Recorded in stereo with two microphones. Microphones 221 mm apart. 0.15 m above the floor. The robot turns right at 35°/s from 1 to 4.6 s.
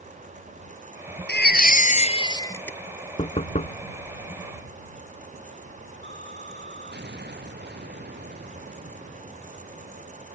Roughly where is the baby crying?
Behind left.